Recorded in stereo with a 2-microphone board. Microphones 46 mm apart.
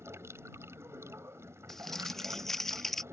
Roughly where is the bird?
I don't hear a bird.